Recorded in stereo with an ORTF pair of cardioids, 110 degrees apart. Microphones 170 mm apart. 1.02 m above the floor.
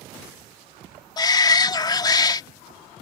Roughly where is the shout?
Ahead left.